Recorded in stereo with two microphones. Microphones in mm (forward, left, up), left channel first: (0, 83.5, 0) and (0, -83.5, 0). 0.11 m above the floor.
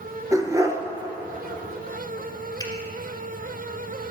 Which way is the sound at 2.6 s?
25° left (ahead or behind).